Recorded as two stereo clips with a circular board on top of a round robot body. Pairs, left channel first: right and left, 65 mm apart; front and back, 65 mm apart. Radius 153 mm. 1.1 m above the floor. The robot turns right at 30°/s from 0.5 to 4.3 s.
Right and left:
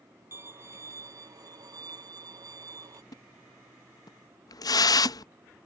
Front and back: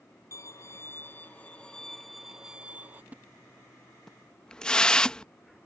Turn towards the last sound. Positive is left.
turn(degrees=-80)